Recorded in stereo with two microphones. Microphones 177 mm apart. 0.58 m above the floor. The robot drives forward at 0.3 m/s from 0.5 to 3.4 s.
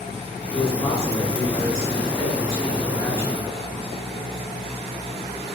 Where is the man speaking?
20° left (ahead or behind), 9.5 m; by 3.5 s 15° left (ahead or behind), 10.5 m.